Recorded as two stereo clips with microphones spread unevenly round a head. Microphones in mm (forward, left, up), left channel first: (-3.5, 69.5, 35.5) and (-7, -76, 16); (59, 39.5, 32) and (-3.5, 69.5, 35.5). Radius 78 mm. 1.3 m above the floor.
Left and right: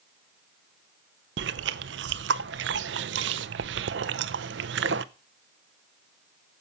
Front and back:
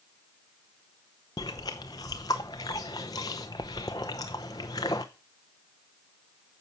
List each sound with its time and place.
1.4 s chewing: 85° right, 0.6 m